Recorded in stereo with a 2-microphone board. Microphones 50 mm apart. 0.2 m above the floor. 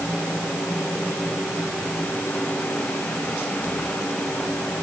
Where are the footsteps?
No footsteps in this recording.